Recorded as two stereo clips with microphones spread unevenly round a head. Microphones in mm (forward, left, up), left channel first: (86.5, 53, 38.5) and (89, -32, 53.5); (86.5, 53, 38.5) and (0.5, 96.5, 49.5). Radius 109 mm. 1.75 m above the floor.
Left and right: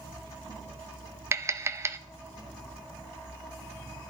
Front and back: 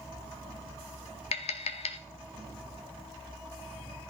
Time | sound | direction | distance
1.3 | tapping | 30° right | 0.9 m